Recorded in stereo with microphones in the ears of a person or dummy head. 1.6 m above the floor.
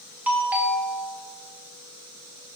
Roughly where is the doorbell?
Centre.